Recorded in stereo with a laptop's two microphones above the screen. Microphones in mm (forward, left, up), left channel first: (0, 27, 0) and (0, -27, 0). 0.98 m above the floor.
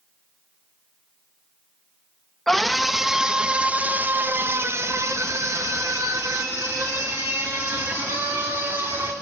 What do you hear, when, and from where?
2.5 s a scream: 5° left (ahead or behind), 1.4 m; by 9.1 s 65° right (ahead or behind), 3 m